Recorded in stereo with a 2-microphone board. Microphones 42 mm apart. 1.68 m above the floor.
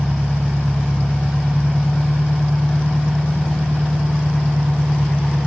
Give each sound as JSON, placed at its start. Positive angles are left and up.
{"t": 0.0, "sound": "an engine running", "side_deg": -65, "distance_m": 3.0}